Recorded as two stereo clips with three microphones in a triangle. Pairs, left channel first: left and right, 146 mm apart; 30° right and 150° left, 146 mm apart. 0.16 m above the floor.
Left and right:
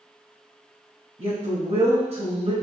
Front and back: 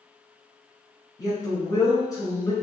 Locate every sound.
1.2 s a woman speaking: 85° right, 1.7 m